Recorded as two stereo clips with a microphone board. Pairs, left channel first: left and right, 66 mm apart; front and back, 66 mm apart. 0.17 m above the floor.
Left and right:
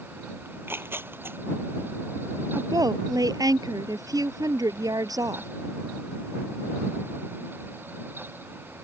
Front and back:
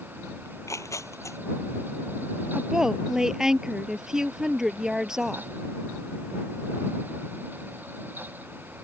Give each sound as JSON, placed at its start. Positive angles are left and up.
{"t": 0.5, "sound": "tearing paper", "azimuth_deg": -35}
{"t": 2.5, "sound": "a woman speaking", "azimuth_deg": -100}